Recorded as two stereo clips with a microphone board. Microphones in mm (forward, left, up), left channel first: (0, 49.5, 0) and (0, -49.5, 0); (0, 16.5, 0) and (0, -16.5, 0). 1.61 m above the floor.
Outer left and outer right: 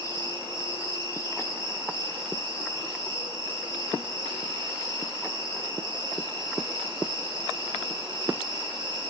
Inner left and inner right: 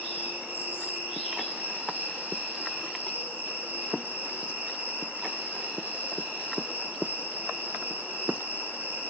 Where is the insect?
60° right (ahead or behind), 4.5 m.